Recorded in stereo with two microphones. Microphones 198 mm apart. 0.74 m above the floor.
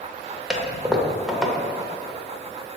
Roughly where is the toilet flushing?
Centre.